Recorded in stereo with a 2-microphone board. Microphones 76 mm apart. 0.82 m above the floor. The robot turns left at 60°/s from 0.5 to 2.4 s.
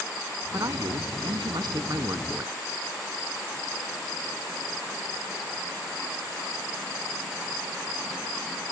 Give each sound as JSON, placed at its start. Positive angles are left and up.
{"t": 0.5, "sound": "a man speaking", "azimuth_deg": -45}